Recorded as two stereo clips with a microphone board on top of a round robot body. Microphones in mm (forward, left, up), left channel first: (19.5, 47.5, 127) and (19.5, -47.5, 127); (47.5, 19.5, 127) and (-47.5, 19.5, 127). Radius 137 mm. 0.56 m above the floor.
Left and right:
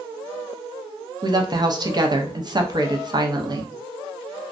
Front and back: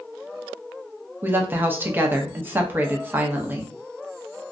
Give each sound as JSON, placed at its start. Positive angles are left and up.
{"t": 1.2, "sound": "a woman speaking", "azimuth_deg": -115, "distance_m": 0.8}